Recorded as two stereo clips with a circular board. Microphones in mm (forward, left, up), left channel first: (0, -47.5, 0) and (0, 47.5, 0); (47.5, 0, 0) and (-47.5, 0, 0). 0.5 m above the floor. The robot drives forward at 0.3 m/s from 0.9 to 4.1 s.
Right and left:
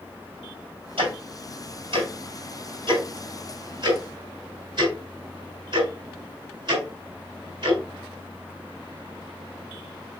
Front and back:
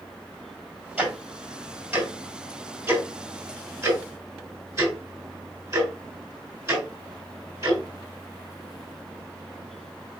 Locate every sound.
1.0 s ticking: 105° left, 2.5 m; by 7.8 s 125° left, 3 m